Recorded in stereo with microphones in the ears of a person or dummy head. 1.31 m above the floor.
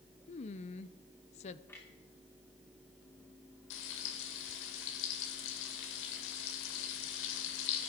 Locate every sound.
0.3 s a woman speaking: 35° left (ahead or behind), 0.7 m
1.7 s a clunk: 10° left (ahead or behind), 2.5 m
3.7 s frying: 70° left (ahead or behind), 2 m